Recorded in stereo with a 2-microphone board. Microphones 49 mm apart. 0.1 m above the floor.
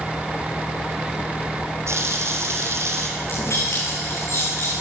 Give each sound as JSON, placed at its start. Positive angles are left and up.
{"t": 1.9, "sound": "a running tap", "side_deg": -65, "distance_m": 3.0}
{"t": 3.2, "sound": "keys jangling", "side_deg": 70, "distance_m": 7.0}